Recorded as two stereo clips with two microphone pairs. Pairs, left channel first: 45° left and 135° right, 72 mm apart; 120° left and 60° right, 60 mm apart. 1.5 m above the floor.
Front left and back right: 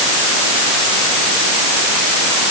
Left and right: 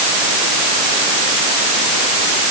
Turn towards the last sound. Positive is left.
No sound to turn to.